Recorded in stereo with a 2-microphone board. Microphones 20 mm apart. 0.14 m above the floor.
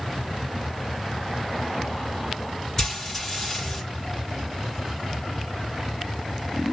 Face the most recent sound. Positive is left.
turn(degrees=20)  # may be behind; listen again after turning